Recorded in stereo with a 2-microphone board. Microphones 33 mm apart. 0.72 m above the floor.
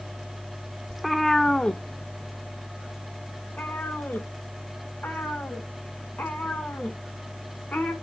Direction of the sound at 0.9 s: 5° right (ahead or behind).